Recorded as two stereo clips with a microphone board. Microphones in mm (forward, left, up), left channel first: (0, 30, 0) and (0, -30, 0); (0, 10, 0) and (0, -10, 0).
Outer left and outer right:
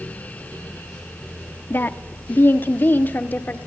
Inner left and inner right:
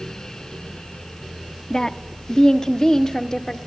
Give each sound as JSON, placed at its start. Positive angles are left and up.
{"t": 1.7, "sound": "a woman speaking", "side_deg": 35, "distance_m": 1.3}